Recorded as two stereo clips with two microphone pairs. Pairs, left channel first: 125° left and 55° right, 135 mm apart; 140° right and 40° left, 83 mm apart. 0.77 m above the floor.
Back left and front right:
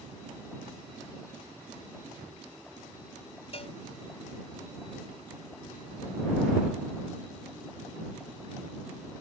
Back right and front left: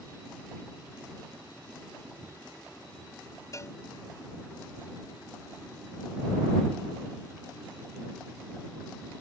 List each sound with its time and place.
3.5 s a cowbell: 170° left